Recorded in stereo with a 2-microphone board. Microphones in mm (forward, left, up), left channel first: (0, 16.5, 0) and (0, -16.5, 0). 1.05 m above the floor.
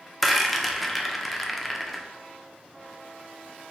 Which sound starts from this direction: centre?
A rattle, at 0.2 s.